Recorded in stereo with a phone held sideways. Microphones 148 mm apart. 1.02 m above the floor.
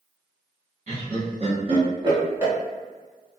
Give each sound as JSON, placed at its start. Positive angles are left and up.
{"t": 0.9, "sound": "laughter", "side_deg": -55, "distance_m": 1.9}